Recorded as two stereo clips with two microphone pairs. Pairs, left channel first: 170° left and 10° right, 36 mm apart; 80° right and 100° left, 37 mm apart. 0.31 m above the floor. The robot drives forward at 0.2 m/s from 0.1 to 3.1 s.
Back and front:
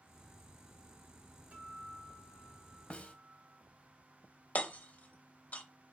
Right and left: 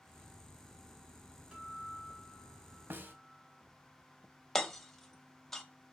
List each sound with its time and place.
1.5 s a guitar: 35° left, 1.2 m; by 3.6 s 50° left, 1.0 m
2.9 s a snare drum: 115° left, 0.5 m
4.5 s hammering: 160° right, 0.6 m